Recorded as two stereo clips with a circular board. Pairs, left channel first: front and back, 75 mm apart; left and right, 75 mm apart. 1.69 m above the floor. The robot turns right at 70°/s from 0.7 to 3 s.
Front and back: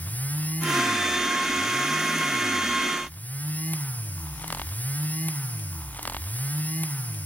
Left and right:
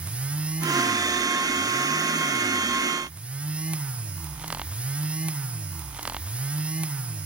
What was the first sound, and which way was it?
Only background noise.